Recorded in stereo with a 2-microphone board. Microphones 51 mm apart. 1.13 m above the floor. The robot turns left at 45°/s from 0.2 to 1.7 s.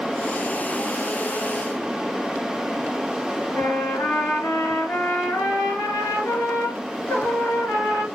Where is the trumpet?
65° left (ahead or behind), 3 m.